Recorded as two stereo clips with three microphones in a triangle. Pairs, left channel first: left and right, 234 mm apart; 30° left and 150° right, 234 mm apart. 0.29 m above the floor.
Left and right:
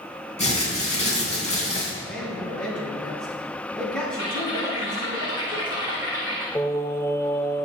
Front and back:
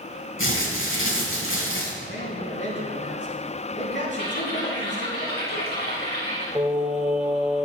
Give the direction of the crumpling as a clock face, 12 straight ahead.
11 o'clock.